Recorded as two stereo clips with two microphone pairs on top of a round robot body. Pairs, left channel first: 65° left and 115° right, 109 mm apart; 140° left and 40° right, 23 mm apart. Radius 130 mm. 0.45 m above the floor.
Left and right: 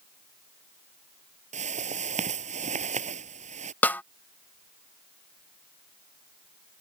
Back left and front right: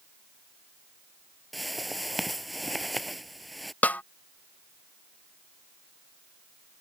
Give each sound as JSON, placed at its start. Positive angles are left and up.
{"t": 1.5, "sound": "a whoosh", "azimuth_deg": -130}
{"t": 3.8, "sound": "a snare drum", "azimuth_deg": 140}